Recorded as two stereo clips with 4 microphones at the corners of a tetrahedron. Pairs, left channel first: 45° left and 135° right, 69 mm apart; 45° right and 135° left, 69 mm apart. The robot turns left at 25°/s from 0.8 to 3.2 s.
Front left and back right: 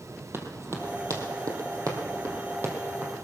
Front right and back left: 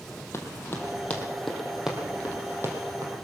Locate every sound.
0.3 s running footsteps: 90° right, 2.5 m; by 3.2 s 160° left, 3 m